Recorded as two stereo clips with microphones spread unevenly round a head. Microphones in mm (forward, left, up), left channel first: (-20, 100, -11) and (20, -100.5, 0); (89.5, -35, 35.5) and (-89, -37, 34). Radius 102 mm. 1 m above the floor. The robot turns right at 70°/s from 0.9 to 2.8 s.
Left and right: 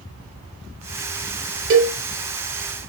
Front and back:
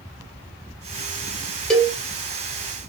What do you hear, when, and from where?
1.7 s a cowbell: 85° right, 0.9 m; by 1.9 s 70° right, 0.9 m